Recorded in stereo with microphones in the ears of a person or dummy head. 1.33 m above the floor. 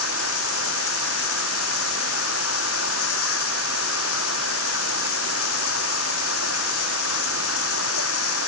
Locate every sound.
0.0 s running water: 85° left